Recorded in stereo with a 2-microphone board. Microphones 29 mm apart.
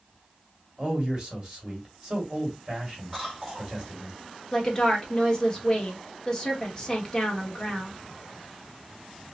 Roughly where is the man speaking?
Right.